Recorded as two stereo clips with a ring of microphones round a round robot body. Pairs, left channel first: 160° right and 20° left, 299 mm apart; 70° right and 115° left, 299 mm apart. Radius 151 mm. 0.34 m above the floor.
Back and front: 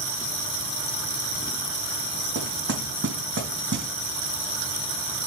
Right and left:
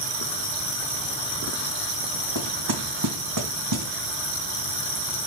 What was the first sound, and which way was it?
Knocking, 75° left.